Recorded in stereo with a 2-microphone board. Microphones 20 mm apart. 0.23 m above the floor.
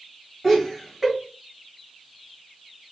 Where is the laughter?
5° right (ahead or behind), 1.8 m.